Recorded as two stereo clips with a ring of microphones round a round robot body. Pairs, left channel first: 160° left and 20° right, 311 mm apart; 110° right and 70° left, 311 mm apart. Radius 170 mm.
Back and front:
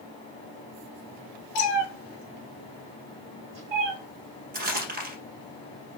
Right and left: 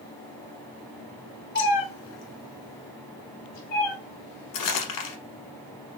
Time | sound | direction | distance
1.6 | a cat meowing | 170° right | 0.9 m
4.5 | crumpling | 85° right | 1.3 m